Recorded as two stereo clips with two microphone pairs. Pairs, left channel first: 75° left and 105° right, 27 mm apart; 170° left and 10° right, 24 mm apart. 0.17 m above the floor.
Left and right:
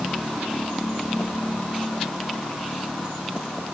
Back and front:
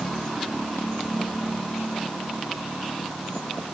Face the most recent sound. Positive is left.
No sound to turn to.